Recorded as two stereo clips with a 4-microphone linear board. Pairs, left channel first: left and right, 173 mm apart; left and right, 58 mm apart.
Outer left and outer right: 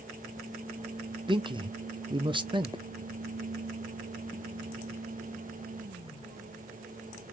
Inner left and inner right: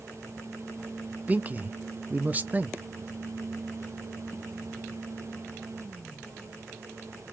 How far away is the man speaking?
About 0.6 m.